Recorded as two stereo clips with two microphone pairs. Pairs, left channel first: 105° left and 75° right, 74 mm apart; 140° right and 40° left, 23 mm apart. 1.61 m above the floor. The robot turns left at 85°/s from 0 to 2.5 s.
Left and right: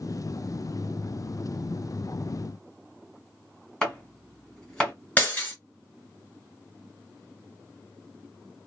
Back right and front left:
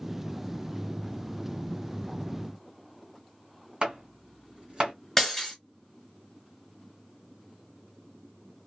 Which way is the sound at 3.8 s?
25° left.